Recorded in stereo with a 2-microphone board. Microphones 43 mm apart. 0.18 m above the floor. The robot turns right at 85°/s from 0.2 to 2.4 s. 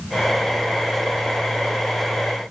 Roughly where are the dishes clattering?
No dishes clattering in this recording.